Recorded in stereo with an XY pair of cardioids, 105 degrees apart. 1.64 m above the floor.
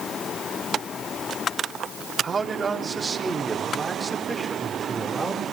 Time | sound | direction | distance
2.2 | a man speaking | 25° right | 4 m